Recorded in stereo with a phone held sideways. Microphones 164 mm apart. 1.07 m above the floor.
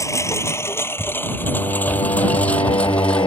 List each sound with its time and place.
0.0 s a lawn mower: 20° left (ahead or behind); by 3.3 s 5° left (ahead or behind)
1.4 s singing: 30° left (ahead or behind)